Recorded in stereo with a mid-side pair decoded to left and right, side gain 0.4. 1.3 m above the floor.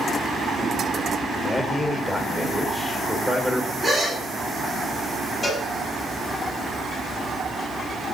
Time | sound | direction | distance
1.4 | a man speaking | 5° left | 4.5 m
3.8 | a gasp | 25° right | 7 m
5.4 | a cowbell | 25° left | 6 m